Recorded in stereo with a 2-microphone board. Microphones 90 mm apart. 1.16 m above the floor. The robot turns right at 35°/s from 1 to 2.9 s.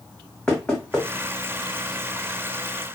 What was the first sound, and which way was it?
Knocking, 10° left (ahead or behind).